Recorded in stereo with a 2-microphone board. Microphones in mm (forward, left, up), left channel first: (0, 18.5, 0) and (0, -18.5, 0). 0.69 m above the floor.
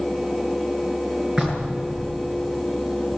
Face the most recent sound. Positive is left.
turn(degrees=-20)  # may be behind; listen again after turning